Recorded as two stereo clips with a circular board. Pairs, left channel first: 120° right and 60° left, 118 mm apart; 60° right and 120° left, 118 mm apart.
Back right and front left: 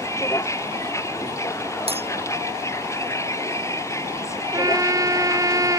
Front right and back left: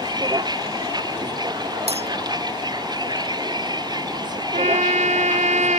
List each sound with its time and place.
0.0 s a vehicle: 175° left
1.9 s breaking glass: 90° left
4.5 s a trumpet: 120° left